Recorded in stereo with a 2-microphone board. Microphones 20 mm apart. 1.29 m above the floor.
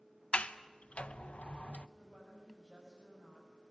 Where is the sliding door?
75° left (ahead or behind), 0.8 m.